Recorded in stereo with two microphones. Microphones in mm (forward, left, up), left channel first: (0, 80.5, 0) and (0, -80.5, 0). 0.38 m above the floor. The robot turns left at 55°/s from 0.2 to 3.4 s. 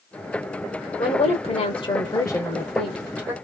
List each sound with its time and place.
1.0 s a woman speaking: 105° left, 1.2 m; by 3.3 s 25° right, 1.2 m